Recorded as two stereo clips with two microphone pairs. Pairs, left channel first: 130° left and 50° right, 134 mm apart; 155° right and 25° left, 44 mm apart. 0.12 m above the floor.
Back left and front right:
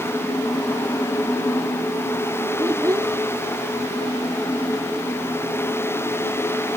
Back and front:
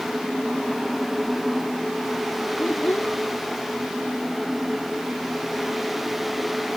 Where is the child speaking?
120° right.